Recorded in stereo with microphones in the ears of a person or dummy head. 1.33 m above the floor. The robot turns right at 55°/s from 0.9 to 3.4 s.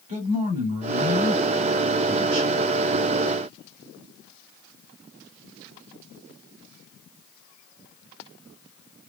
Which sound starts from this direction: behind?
A man speaking, at 0.1 s.